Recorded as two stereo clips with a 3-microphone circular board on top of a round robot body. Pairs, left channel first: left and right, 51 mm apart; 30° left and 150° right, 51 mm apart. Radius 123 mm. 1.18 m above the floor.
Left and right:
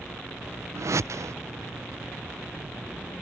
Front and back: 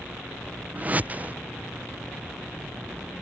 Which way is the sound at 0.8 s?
95° right.